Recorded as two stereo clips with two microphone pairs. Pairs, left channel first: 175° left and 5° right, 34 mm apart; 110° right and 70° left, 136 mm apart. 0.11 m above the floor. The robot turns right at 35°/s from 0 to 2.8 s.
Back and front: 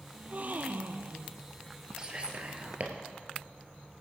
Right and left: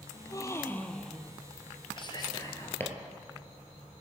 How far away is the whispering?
About 2 m.